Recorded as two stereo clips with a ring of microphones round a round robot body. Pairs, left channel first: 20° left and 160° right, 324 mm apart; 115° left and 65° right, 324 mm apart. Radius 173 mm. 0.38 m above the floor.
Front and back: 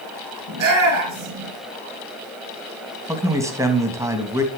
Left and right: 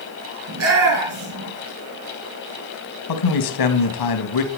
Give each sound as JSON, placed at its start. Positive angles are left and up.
{"t": 0.5, "sound": "a shout", "azimuth_deg": -115, "distance_m": 6.0}
{"t": 3.1, "sound": "a man speaking", "azimuth_deg": 120, "distance_m": 3.0}